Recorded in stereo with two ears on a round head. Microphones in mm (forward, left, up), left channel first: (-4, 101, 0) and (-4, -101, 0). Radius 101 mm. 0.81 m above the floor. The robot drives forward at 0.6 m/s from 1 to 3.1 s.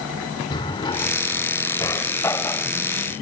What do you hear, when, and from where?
0.5 s a drawer: 20° left (ahead or behind); by 2.7 s 10° left (ahead or behind)